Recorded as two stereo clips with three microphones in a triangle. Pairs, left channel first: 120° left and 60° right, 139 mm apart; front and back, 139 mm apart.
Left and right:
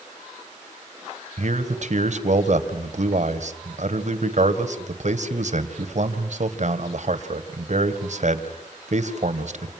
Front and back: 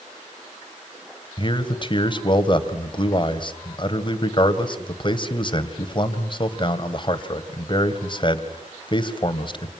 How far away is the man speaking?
About 2 m.